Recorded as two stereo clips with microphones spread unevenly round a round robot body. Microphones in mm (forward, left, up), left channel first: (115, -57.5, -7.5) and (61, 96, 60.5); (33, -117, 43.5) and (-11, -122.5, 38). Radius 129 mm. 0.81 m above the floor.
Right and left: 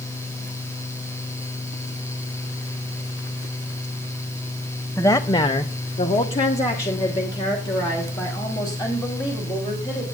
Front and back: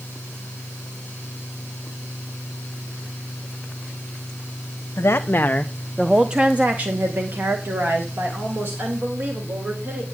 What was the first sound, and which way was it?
A woman speaking, 15° right.